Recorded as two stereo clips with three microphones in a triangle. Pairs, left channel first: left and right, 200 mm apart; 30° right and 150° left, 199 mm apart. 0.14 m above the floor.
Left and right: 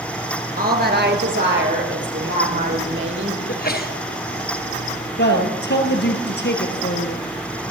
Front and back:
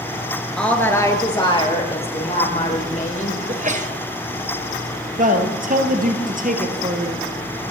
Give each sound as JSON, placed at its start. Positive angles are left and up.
{"t": 0.6, "sound": "a woman speaking", "azimuth_deg": -115, "distance_m": 2.5}
{"t": 3.5, "sound": "a sneeze", "azimuth_deg": 110, "distance_m": 2.0}
{"t": 5.2, "sound": "a man speaking", "azimuth_deg": 110, "distance_m": 2.5}